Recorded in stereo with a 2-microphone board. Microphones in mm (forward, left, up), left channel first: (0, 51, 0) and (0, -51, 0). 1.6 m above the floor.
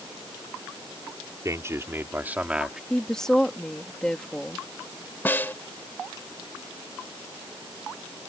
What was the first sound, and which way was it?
A man speaking, 30° right (ahead or behind).